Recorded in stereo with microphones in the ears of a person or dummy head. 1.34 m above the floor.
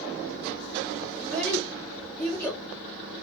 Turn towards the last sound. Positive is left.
turn(degrees=15)  # may be behind; listen again after turning